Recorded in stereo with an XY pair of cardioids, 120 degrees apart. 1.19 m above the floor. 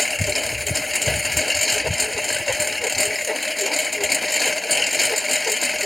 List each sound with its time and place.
0.0 s a lawn mower: 5° left